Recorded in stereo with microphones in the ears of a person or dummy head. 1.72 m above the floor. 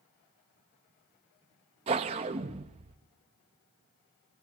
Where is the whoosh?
30° right (ahead or behind), 1.1 m.